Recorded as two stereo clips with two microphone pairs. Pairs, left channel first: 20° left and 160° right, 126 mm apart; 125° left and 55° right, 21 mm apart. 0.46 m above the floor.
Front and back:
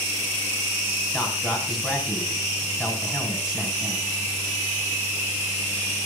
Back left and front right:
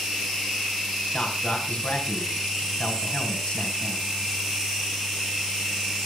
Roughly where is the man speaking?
Behind left.